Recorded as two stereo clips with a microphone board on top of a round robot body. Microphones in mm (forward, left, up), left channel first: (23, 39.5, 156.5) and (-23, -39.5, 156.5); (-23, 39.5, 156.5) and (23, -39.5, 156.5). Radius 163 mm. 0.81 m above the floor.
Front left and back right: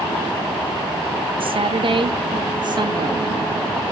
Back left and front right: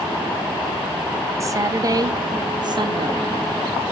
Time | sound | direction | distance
1.4 | a woman speaking | 115° right | 2.0 m